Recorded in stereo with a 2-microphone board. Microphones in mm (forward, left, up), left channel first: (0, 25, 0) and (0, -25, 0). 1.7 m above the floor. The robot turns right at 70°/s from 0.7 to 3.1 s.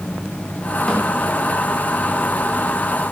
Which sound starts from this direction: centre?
A snare drum, at 0.9 s.